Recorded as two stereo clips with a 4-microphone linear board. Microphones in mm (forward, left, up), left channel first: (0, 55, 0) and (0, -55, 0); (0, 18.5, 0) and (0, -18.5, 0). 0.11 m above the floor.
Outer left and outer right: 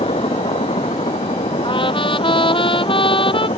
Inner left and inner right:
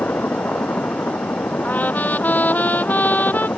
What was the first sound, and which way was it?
A helicopter, 75° left (ahead or behind).